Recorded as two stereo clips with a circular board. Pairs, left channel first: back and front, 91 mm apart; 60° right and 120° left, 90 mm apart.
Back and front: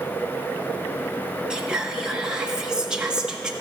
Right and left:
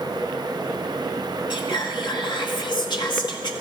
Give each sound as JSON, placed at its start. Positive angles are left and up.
{"t": 1.5, "sound": "whispering", "azimuth_deg": -80, "distance_m": 1.4}